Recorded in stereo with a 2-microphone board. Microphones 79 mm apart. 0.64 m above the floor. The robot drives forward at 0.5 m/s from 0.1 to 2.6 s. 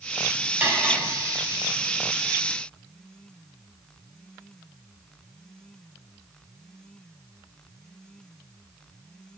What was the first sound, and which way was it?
Cutlery clinking, 25° right (ahead or behind).